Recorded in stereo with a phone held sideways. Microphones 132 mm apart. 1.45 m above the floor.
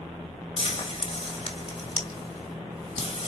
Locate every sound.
0.6 s frying: 60° left (ahead or behind), 2.5 m